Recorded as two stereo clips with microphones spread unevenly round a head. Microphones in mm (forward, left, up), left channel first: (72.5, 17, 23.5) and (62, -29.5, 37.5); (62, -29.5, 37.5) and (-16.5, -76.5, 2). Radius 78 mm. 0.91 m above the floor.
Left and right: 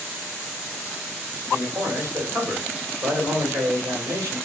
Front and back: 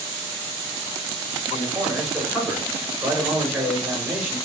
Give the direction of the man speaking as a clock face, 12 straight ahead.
3 o'clock.